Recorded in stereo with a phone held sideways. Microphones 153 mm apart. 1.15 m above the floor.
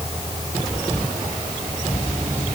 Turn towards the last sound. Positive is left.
No sound to turn to.